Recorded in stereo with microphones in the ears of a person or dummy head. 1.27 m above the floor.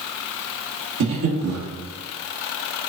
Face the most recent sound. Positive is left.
turn(degrees=-55)  # may be behind; listen again after turning